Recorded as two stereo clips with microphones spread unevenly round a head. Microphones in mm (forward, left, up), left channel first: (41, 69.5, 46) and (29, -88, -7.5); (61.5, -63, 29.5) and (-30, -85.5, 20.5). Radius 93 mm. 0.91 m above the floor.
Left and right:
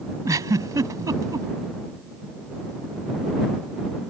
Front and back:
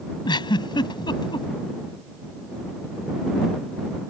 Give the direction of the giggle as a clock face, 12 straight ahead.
1 o'clock.